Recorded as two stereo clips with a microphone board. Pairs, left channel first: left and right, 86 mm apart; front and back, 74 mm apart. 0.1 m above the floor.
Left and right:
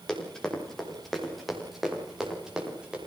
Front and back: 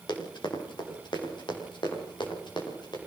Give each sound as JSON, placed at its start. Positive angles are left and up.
{"t": 0.1, "sound": "running footsteps", "azimuth_deg": 10, "distance_m": 6.5}